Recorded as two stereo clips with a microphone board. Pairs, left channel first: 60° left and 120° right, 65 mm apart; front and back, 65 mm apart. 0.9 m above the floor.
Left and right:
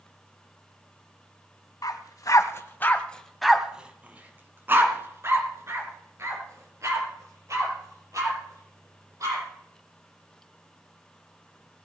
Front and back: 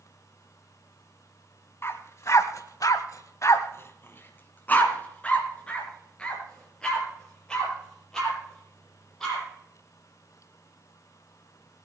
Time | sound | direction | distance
1.8 | a dog barking | 45° left | 1.7 m